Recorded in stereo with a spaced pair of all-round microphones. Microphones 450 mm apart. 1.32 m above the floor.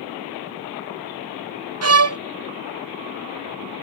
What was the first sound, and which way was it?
A violin, 35° right (ahead or behind).